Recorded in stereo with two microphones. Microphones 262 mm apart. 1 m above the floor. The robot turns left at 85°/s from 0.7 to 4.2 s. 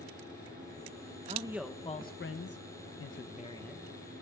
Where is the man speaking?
150° right, 0.6 m; by 3.8 s 5° right, 0.6 m.